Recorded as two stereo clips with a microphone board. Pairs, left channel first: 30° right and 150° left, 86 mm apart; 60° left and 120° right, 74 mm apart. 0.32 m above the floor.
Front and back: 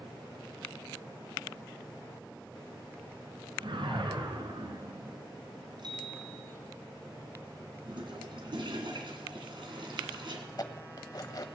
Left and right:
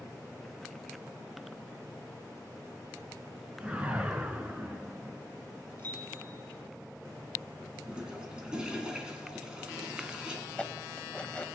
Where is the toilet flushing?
160° left, 2.5 m.